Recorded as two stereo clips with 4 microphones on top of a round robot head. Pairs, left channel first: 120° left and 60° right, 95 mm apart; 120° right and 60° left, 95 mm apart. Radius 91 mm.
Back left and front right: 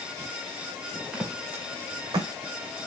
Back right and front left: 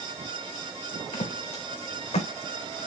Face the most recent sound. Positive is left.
turn(degrees=-105)